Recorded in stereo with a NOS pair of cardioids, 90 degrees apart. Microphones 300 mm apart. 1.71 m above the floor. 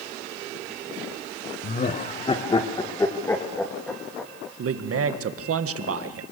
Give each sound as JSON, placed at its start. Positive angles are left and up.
{"t": 1.6, "sound": "laughter", "azimuth_deg": 30, "distance_m": 1.5}
{"t": 4.6, "sound": "a man speaking", "azimuth_deg": -55, "distance_m": 1.9}